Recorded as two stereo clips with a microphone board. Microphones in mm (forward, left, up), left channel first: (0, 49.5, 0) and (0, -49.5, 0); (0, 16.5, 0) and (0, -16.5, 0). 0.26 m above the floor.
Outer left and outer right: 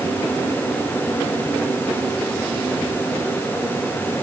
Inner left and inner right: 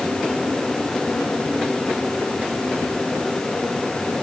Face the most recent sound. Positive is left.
No sound to turn to.